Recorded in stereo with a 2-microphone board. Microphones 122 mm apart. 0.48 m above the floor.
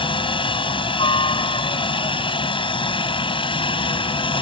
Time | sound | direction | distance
0.0 | a helicopter | 45° left (ahead or behind) | ?